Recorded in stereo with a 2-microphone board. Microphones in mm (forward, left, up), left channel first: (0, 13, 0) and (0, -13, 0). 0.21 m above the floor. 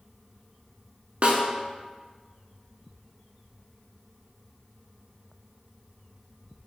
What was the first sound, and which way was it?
A snare drum, 45° right (ahead or behind).